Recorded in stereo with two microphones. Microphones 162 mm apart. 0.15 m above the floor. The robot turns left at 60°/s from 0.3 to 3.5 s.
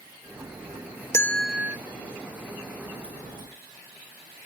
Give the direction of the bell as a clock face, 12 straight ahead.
11 o'clock.